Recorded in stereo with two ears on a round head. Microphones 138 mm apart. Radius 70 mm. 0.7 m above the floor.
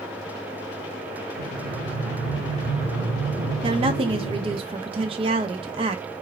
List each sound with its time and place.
1.4 s breathing: 10° right (ahead or behind), 1.7 m
3.6 s a woman speaking: 35° right (ahead or behind), 0.5 m